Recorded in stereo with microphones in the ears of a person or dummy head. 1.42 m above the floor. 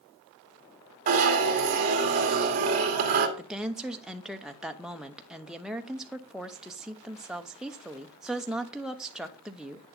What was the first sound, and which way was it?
A zipper, 45° right (ahead or behind).